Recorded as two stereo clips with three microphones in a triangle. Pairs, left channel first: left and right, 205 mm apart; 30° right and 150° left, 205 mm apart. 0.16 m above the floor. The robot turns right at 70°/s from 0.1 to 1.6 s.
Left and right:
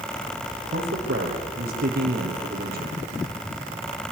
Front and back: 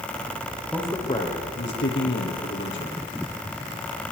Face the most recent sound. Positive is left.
turn(degrees=-50)